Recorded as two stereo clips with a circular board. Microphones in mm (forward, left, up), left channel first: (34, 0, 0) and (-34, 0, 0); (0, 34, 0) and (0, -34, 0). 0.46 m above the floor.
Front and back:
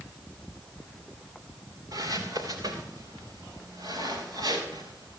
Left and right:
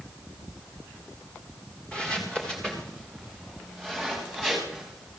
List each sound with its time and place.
1.9 s footsteps: 165° left, 3 m; by 5.2 s 175° left, 6.5 m